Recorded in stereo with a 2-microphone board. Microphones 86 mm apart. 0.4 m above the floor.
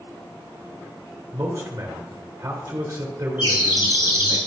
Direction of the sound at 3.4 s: 75° left (ahead or behind).